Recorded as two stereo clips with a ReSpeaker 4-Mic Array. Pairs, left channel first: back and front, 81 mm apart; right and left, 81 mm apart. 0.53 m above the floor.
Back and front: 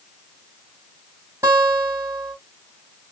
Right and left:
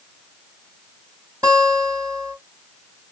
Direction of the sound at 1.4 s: 50° left.